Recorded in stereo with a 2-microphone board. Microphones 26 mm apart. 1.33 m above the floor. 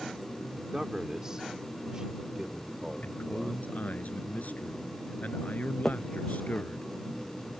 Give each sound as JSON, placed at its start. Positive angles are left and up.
{"t": 0.6, "sound": "a man speaking", "side_deg": -25}
{"t": 3.0, "sound": "a man speaking", "side_deg": 75}
{"t": 5.8, "sound": "a finger snap", "side_deg": 0}